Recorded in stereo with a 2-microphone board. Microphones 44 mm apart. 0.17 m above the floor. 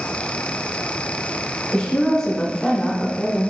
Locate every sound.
1.7 s a woman speaking: 15° left (ahead or behind), 1.5 m